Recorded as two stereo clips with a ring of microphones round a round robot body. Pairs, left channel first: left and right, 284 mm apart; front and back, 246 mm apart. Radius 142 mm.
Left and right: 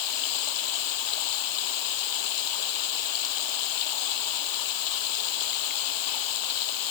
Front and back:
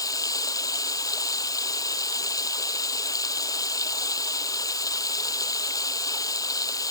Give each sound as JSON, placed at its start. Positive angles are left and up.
{"t": 0.0, "sound": "running water", "azimuth_deg": 75}